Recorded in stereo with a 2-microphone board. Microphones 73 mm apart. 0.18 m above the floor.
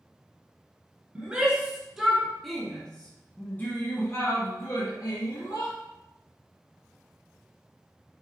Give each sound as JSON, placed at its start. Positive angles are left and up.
{"t": 1.1, "sound": "a shout", "side_deg": -10, "distance_m": 2.0}